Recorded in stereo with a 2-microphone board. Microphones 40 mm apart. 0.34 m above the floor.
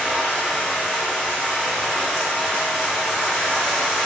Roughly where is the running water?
Centre.